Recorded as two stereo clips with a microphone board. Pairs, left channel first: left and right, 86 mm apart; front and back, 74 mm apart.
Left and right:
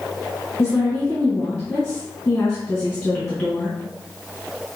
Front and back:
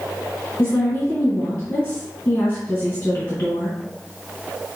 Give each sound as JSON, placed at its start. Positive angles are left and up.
{"t": 0.6, "sound": "a woman speaking", "azimuth_deg": 45, "distance_m": 2.0}